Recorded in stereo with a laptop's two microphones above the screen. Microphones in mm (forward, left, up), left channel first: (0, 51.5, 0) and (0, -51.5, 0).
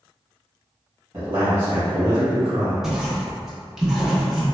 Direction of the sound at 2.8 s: 5° right (ahead or behind).